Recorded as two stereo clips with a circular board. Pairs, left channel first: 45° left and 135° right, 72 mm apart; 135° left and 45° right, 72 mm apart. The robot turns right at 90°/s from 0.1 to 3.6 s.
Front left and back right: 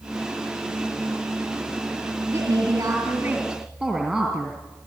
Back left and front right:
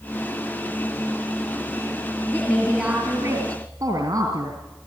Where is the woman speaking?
155° right, 2.5 m; by 4.6 s 40° right, 2.5 m.